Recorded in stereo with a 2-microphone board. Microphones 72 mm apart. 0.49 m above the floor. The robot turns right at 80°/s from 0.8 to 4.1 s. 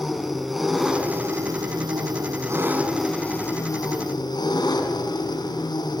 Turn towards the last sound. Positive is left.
turn(degrees=85)